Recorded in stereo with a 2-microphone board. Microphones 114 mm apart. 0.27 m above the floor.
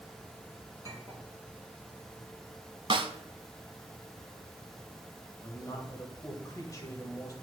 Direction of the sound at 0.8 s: 25° right (ahead or behind).